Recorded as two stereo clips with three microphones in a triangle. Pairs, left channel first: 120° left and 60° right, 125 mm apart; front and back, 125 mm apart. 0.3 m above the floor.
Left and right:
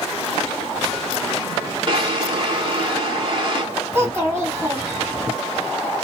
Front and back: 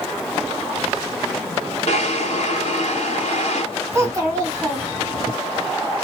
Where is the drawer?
15° right, 0.7 m.